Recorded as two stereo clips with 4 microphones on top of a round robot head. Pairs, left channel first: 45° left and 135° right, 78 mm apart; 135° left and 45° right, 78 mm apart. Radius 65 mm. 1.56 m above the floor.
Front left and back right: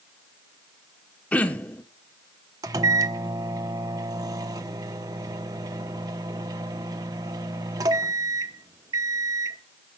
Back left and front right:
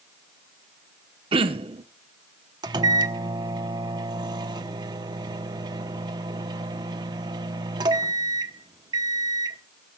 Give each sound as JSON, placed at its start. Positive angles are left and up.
{"t": 1.3, "sound": "throat clearing", "azimuth_deg": -30, "distance_m": 1.1}
{"t": 2.6, "sound": "a microwave", "azimuth_deg": -85, "distance_m": 0.9}